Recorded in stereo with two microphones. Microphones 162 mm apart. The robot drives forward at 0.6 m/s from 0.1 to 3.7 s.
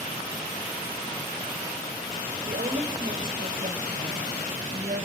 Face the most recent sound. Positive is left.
turn(degrees=-60)  # may be behind; listen again after turning